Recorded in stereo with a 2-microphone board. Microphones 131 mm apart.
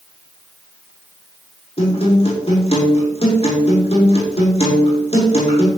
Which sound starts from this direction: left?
A guitar, at 1.8 s.